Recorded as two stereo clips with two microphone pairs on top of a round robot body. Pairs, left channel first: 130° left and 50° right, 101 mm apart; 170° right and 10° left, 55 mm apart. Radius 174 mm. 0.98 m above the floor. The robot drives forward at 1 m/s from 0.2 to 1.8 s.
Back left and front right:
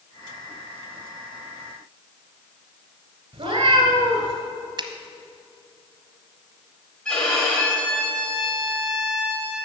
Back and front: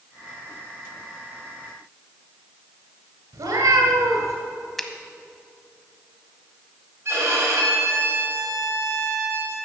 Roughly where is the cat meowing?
Ahead.